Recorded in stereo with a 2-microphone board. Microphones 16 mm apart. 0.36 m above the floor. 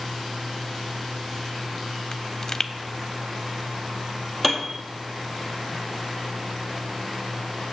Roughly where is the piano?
Centre.